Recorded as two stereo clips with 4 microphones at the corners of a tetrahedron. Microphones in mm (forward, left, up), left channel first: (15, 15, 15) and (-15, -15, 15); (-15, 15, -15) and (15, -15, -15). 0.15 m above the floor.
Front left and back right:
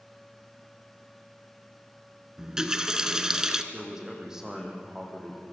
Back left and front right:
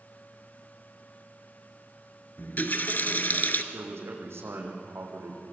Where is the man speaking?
55° right, 6 m.